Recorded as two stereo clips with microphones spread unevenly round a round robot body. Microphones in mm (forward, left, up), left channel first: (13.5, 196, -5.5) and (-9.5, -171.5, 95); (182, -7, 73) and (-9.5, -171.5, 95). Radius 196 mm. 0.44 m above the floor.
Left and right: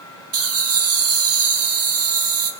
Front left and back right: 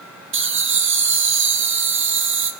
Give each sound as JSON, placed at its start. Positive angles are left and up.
{"t": 0.3, "sound": "laughter", "azimuth_deg": -145, "distance_m": 1.8}